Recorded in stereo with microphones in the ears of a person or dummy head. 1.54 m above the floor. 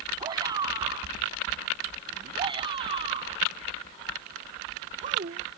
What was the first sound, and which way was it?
A shout, 30° right (ahead or behind).